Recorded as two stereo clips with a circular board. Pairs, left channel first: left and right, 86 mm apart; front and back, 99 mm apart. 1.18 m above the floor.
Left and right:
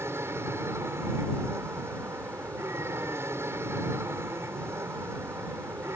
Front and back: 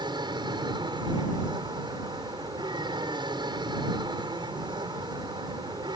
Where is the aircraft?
145° right.